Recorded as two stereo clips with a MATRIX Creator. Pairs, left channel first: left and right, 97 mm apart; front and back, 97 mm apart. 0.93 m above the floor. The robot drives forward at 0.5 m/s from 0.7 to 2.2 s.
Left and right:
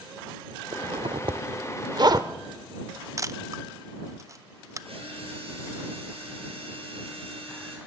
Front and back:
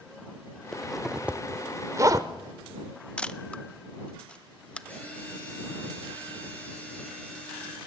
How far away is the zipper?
About 0.8 m.